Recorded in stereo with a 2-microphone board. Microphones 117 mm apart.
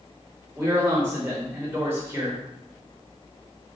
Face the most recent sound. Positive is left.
turn(degrees=-20)  # may be behind; listen again after turning